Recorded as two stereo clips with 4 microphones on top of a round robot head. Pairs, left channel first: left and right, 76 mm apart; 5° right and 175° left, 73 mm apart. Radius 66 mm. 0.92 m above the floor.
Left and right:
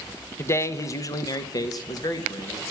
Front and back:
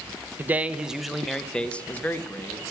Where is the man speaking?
130° left, 0.8 m; by 2.6 s 55° left, 1.4 m.